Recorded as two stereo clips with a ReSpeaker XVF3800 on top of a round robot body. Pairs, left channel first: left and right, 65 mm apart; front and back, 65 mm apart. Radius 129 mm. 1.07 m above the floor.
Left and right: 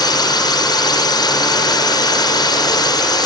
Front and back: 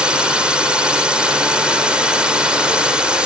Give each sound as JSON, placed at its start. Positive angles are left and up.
{"t": 0.0, "sound": "a drone", "azimuth_deg": 100}